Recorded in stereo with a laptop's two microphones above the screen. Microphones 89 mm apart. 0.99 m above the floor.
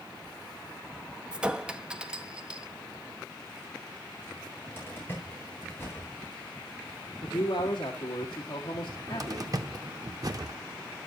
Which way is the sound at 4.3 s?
20° left (ahead or behind).